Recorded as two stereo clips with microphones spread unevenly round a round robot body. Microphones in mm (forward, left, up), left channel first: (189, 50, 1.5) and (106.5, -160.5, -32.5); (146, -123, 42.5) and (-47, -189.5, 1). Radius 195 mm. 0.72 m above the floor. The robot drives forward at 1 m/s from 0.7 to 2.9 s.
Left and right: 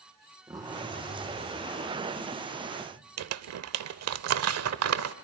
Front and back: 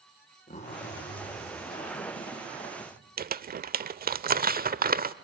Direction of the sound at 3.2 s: 110° right.